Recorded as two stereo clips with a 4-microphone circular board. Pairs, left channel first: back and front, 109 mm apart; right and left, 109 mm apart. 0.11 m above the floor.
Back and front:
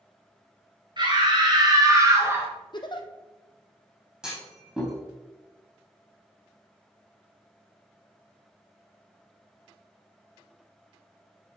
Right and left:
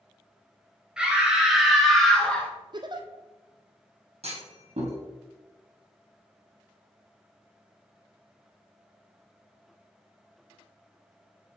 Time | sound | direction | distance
1.0 | a scream | 10° left | 2.5 m
2.7 | a giggle | 135° left | 0.8 m
4.2 | a clunk | 85° left | 3 m